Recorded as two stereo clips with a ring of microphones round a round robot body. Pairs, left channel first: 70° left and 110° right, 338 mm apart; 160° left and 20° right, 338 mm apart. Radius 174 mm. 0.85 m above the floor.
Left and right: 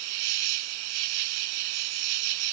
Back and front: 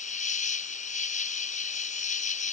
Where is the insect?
135° right.